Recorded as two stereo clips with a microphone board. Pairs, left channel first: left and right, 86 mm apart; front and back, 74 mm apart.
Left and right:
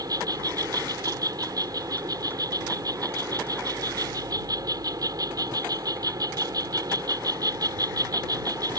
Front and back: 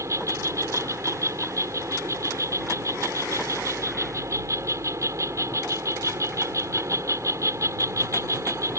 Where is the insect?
135° right.